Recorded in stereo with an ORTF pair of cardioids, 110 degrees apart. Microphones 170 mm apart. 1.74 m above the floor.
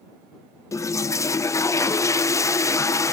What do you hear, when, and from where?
0.7 s a toilet flushing: 20° left